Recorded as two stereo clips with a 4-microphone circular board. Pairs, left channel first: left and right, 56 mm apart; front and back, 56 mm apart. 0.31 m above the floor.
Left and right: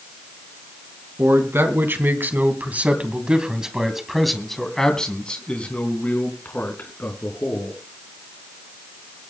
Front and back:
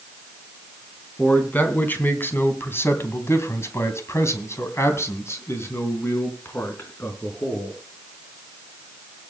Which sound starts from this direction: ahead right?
A man speaking, at 1.2 s.